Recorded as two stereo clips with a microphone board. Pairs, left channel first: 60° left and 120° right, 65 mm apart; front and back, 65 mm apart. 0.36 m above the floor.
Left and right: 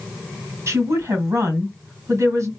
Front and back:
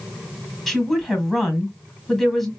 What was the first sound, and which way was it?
A woman speaking, 90° right.